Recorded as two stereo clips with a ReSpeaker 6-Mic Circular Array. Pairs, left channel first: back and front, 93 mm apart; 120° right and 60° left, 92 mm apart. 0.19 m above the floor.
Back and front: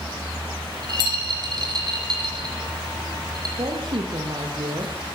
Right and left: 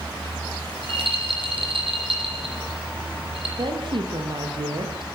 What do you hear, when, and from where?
0.7 s a rattle: 40° left, 8 m
3.6 s a woman speaking: 30° left, 7 m